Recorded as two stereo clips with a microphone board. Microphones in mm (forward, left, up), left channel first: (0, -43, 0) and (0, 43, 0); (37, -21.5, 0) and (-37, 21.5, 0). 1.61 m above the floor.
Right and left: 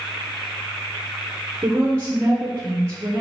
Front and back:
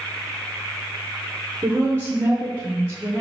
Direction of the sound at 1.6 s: 105° left.